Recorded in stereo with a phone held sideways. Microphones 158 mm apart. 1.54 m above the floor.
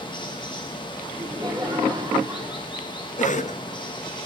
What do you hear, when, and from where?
0.0 s running water: 30° left (ahead or behind), 1.5 m
1.1 s laughter: 30° right (ahead or behind), 3.5 m
3.2 s a cough: 50° left (ahead or behind), 0.7 m